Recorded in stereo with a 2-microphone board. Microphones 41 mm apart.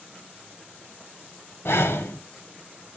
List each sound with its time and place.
1.6 s breathing: 80° left, 1.1 m